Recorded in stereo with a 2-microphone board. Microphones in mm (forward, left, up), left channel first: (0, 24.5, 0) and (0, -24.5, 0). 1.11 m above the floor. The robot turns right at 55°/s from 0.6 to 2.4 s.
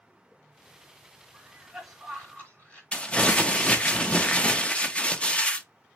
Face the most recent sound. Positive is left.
turn(degrees=25)  # may be behind; listen again after turning